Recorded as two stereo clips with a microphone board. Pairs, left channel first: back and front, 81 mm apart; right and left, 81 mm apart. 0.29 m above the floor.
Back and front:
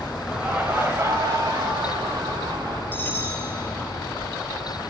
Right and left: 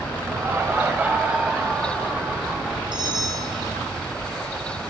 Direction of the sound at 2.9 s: 115° left.